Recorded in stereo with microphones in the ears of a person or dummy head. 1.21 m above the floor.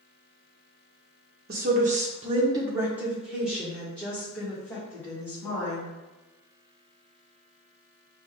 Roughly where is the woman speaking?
Right.